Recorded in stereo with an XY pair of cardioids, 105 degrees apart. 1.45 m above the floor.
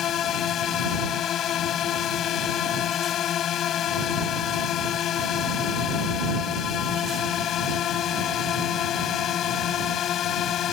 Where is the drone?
65° left.